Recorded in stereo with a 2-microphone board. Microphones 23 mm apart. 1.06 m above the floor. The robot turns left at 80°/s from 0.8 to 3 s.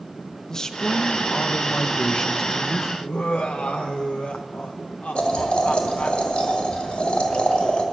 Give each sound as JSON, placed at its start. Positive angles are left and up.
{"t": 0.5, "sound": "a man speaking", "azimuth_deg": 150, "distance_m": 0.6}
{"t": 3.0, "sound": "laughter", "side_deg": 75, "distance_m": 0.5}
{"t": 5.2, "sound": "boiling", "side_deg": 65, "distance_m": 1.7}